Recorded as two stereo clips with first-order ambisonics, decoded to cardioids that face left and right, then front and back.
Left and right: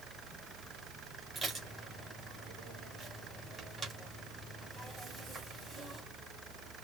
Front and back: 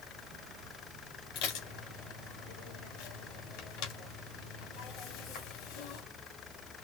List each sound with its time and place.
1.4 s dishes clattering: 15° right, 3 m